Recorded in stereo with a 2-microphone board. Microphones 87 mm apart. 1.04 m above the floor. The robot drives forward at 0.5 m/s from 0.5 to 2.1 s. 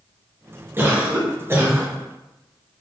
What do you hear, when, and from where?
0.8 s a cough: 25° right (ahead or behind), 0.9 m